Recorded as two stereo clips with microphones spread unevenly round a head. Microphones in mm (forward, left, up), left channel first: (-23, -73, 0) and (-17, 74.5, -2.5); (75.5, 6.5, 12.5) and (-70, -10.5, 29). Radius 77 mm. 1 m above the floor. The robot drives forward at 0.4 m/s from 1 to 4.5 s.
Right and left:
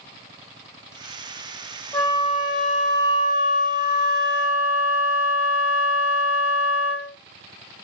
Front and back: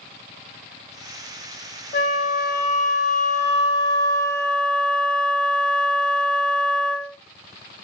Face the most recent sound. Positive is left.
turn(degrees=-75)